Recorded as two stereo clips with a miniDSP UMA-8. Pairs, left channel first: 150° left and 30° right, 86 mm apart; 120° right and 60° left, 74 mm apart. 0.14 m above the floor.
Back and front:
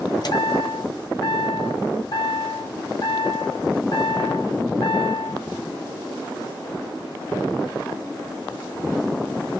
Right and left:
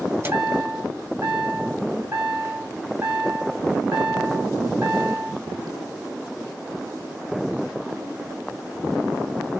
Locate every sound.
0.2 s a chime: 115° left, 0.9 m